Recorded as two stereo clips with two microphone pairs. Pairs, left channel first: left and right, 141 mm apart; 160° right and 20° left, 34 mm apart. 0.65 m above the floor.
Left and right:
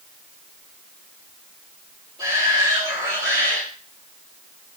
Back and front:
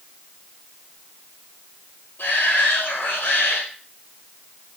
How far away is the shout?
About 8.5 m.